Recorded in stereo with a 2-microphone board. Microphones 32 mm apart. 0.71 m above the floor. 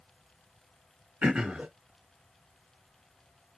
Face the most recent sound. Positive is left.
turn(degrees=-35)  # may be behind; listen again after turning